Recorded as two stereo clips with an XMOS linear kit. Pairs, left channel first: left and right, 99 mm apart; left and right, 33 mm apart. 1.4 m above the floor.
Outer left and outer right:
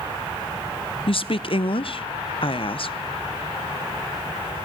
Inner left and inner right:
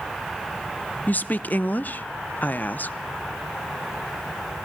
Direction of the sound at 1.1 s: 65° left (ahead or behind).